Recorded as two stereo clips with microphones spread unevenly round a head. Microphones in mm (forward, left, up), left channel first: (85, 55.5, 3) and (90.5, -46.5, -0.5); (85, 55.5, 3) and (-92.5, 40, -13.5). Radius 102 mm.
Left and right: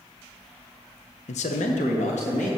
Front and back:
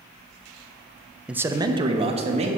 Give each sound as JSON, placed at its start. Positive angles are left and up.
{"t": 1.3, "sound": "a man speaking", "azimuth_deg": 100, "distance_m": 0.6}